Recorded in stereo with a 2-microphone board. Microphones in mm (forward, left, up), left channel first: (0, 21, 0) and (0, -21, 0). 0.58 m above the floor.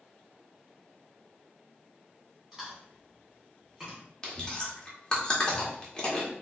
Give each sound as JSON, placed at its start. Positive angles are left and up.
{"t": 2.5, "sound": "chewing", "side_deg": -10, "distance_m": 1.9}
{"t": 4.2, "sound": "chewing", "side_deg": 20, "distance_m": 0.9}